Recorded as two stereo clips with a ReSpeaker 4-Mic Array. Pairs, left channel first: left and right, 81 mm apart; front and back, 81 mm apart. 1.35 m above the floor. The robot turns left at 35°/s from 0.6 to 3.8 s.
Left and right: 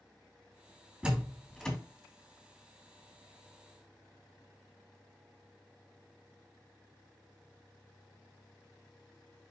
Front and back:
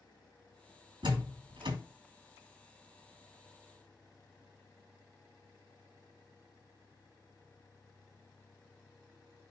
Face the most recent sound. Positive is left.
turn(degrees=100)